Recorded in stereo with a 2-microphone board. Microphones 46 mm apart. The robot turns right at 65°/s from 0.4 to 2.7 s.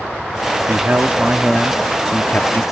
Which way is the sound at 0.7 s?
65° right.